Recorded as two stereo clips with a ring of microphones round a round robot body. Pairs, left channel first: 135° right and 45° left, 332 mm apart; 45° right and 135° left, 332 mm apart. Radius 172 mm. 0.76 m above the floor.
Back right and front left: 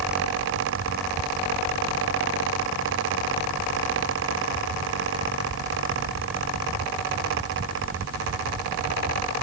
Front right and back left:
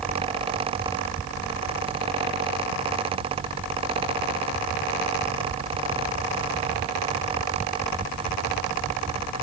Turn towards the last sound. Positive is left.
No sound to turn to.